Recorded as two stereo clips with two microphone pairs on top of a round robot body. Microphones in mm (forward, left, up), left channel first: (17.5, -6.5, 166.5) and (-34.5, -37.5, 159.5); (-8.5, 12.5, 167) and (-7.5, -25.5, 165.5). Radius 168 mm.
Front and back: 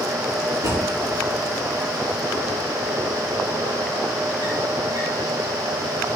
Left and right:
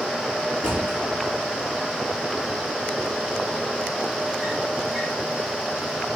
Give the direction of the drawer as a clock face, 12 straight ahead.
5 o'clock.